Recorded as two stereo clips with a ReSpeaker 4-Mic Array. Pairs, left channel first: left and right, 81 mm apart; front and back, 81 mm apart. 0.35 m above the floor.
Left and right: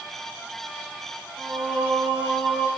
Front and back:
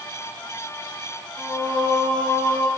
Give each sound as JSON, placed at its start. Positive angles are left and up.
{"t": 1.4, "sound": "singing", "azimuth_deg": -75, "distance_m": 7.0}